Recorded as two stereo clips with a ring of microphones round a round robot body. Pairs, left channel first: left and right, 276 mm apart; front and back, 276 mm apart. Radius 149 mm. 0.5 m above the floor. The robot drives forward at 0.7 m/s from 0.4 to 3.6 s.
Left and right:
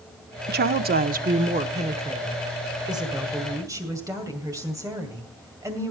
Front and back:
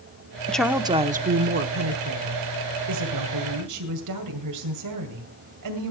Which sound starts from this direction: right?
A woman speaking, at 0.5 s.